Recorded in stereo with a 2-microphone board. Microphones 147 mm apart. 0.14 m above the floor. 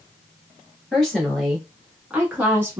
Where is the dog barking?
No dog barking in this recording.